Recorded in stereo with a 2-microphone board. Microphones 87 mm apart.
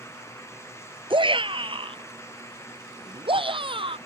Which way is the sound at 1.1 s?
75° right (ahead or behind).